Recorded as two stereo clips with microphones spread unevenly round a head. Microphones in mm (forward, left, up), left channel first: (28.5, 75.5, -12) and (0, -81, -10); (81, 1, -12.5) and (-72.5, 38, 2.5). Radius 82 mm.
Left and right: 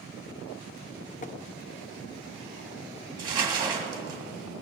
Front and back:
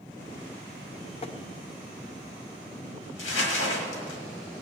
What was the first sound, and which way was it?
Tapping, 40° left.